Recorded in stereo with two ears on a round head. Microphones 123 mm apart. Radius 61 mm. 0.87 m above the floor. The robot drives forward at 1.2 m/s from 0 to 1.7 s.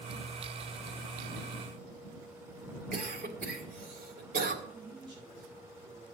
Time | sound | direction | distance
2.9 | a cough | 70° right (ahead or behind) | 3 m
4.6 | a man speaking | 35° right (ahead or behind) | 6 m